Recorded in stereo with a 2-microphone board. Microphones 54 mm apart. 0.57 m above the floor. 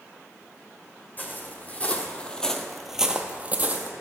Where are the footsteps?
35° left (ahead or behind), 1.2 m; by 3.9 s 35° right (ahead or behind), 0.8 m.